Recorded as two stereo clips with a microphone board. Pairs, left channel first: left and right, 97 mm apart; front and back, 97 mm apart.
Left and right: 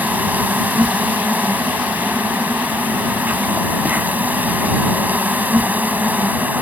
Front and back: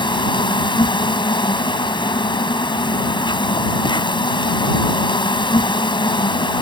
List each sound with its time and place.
0.0 s an insect: 20° right